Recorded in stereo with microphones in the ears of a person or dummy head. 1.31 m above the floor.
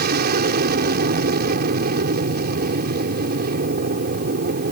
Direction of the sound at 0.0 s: 55° right (ahead or behind).